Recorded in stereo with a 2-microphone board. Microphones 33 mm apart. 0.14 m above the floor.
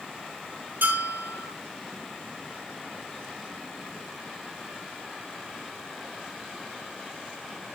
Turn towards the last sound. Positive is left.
turn(degrees=-65)  # may be behind; listen again after turning